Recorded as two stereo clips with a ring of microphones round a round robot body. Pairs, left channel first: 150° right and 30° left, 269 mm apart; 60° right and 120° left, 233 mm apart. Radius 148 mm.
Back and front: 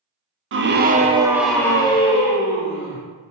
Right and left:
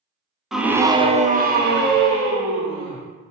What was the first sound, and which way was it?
A scream, 30° left.